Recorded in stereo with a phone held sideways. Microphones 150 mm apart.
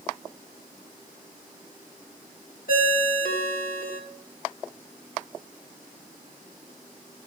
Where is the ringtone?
80° left, 1.5 m.